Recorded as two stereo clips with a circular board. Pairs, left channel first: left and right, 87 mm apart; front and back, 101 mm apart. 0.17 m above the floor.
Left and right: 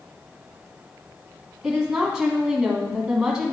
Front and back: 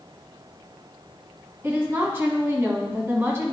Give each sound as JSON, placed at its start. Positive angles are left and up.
{"t": 1.6, "sound": "a woman speaking", "azimuth_deg": -160, "distance_m": 1.7}